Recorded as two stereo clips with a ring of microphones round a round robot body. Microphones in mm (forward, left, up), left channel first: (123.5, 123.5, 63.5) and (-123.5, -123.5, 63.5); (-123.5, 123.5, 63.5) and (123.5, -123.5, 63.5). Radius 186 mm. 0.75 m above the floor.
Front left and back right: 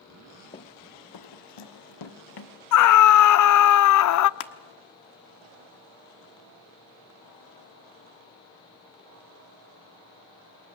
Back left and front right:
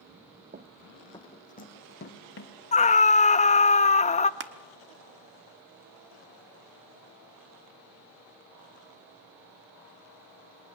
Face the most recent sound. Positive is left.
turn(degrees=15)